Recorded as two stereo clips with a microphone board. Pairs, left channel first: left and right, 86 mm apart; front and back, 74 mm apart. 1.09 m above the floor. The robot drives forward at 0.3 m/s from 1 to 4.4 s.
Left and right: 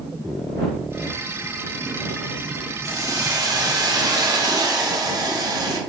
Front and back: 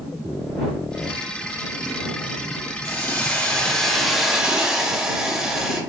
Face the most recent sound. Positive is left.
turn(degrees=-105)